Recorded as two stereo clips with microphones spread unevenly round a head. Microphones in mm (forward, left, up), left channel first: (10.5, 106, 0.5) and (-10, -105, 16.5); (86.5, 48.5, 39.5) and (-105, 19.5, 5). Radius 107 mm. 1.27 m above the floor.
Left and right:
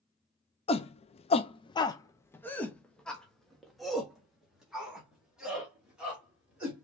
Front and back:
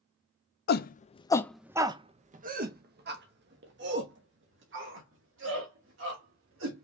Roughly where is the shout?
Ahead left.